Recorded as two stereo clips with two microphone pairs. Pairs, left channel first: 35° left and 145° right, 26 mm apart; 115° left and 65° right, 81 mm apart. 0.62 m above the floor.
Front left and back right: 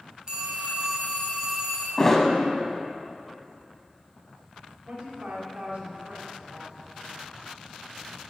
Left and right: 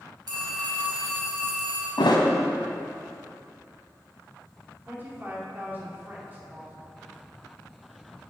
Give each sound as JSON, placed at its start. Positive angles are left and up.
{"t": 0.3, "sound": "a phone ringing", "azimuth_deg": -90, "distance_m": 2.0}
{"t": 2.0, "sound": "a thud", "azimuth_deg": 115, "distance_m": 1.0}
{"t": 4.8, "sound": "a woman speaking", "azimuth_deg": -125, "distance_m": 1.8}